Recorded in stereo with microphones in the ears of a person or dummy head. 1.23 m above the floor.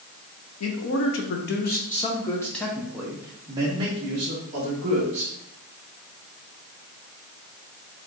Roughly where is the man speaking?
Left.